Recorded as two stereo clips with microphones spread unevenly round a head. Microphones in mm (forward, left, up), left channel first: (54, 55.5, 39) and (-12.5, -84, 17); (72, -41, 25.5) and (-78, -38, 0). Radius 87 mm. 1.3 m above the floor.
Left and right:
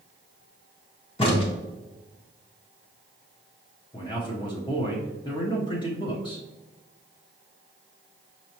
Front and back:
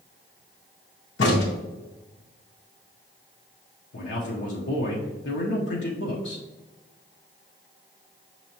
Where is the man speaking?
Straight ahead, 0.8 m.